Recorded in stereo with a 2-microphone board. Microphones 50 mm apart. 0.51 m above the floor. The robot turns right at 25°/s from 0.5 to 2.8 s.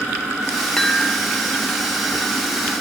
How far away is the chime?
About 0.7 m.